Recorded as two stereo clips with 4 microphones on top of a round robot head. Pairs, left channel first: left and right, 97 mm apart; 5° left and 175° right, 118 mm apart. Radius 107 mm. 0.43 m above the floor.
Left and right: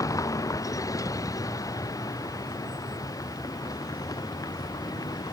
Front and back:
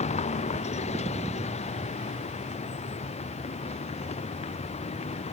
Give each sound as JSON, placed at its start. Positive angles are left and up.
{"t": 0.0, "sound": "a vehicle", "azimuth_deg": 35}